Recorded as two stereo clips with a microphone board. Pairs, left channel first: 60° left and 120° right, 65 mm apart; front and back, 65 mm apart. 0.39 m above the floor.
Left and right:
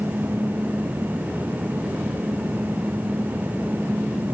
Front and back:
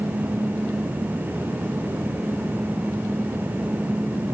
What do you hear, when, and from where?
Only background noise.